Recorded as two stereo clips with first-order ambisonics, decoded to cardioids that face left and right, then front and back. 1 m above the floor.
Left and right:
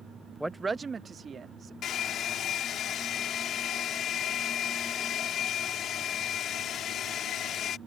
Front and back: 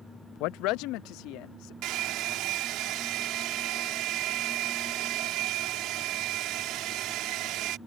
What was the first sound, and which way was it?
A woman speaking, 5° right.